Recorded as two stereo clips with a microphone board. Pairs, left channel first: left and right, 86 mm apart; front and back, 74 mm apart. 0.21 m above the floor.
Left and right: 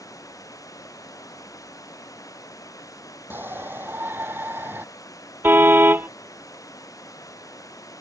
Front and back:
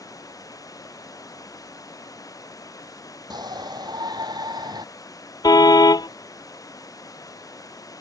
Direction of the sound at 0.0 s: 40° left.